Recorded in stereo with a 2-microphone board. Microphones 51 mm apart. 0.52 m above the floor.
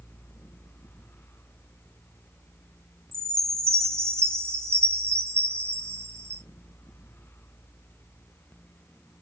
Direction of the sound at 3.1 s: 60° right (ahead or behind).